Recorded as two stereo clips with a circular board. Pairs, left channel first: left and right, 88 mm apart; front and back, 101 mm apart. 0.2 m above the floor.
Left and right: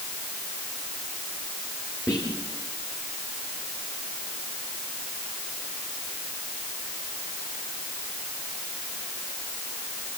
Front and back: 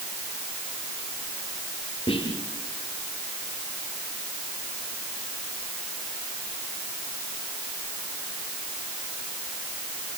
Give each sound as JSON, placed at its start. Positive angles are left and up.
{"t": 2.1, "sound": "whispering", "azimuth_deg": 30, "distance_m": 3.0}